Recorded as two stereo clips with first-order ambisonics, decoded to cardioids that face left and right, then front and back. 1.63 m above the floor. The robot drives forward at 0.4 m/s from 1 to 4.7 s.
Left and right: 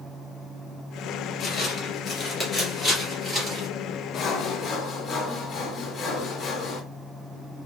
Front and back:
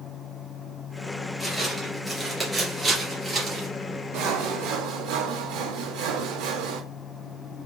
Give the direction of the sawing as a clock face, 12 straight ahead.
7 o'clock.